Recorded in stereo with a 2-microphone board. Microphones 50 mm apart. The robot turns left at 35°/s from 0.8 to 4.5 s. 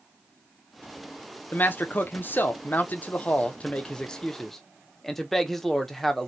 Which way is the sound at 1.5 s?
115° left.